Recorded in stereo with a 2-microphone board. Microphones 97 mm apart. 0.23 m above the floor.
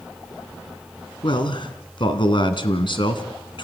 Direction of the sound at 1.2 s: 60° left (ahead or behind).